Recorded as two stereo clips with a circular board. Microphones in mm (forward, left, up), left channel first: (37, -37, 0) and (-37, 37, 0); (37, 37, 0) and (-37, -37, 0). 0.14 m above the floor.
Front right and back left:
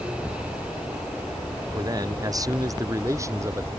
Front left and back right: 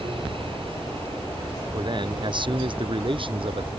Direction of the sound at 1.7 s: 175° right.